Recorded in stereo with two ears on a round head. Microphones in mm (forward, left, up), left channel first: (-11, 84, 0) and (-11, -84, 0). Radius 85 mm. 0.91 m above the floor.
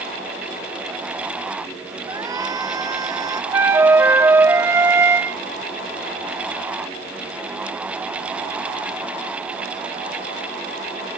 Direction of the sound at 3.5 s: 15° right (ahead or behind).